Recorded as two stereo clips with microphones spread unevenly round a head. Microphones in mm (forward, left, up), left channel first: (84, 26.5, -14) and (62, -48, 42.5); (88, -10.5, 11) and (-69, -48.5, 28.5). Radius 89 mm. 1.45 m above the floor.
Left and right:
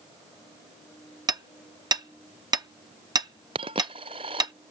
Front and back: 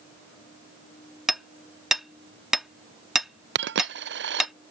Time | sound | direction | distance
1.3 | hammering | 80° right | ?
3.5 | a dropped coin | 150° right | ?